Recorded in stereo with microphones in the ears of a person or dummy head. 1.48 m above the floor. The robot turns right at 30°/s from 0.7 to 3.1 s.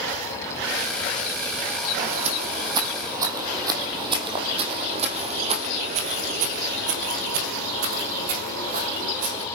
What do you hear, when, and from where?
2.0 s footsteps: 45° right (ahead or behind), 4 m